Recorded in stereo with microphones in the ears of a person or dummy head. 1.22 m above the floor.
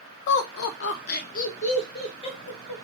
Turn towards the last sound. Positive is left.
turn(degrees=25)  # may be behind; listen again after turning